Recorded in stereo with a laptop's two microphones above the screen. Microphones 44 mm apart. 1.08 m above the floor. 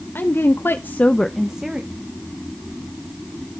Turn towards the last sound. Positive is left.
turn(degrees=-20)  # may be behind; listen again after turning